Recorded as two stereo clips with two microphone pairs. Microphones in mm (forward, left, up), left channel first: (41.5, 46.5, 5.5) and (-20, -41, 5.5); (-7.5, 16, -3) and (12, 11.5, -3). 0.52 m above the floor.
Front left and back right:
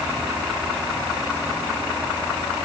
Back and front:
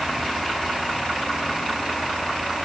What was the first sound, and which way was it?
Only background noise.